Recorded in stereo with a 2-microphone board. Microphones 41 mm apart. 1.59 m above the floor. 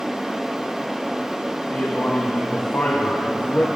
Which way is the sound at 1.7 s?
50° left (ahead or behind).